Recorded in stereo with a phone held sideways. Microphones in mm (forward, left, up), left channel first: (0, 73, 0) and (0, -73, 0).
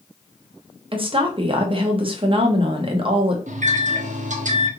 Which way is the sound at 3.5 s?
60° right (ahead or behind).